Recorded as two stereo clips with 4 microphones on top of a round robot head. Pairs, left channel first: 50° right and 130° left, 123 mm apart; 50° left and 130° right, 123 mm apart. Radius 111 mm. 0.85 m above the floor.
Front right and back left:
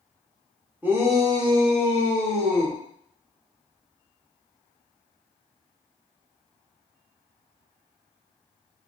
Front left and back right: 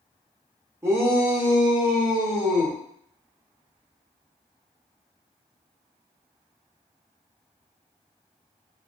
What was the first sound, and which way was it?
A shout, 170° right.